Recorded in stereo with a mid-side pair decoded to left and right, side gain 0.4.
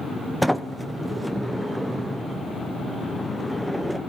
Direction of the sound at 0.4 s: Straight ahead.